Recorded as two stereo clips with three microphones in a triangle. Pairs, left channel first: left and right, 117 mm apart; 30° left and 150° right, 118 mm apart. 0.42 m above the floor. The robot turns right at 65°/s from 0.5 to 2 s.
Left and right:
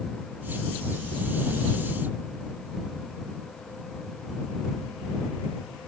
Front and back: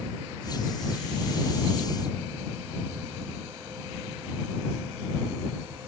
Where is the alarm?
I don't hear an alarm.